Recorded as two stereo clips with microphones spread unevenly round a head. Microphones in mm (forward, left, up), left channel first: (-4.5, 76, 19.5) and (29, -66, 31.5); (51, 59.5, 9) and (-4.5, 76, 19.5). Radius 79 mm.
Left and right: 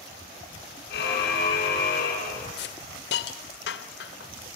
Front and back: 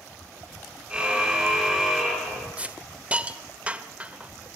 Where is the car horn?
90° left, 7.5 m; by 2.5 s 80° left, 9.5 m.